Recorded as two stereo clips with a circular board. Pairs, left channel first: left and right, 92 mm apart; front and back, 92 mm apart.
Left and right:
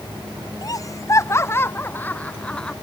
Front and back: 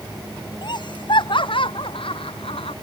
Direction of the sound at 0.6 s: 40° left.